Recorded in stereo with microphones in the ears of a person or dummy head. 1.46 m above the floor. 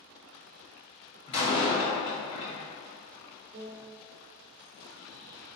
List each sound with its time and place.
1.3 s a door slam: 35° left (ahead or behind), 0.7 m
3.5 s a piano: 65° right (ahead or behind), 0.5 m